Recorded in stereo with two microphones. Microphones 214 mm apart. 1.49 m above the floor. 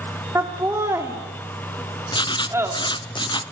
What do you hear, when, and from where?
0.3 s laughter: 15° right (ahead or behind), 3.5 m
2.1 s writing: 20° left (ahead or behind), 0.6 m